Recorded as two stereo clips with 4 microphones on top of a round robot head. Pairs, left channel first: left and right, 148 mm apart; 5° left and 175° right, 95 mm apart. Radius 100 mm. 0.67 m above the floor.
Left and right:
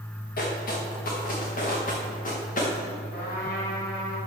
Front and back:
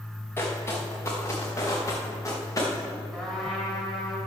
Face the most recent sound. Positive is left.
turn(degrees=90)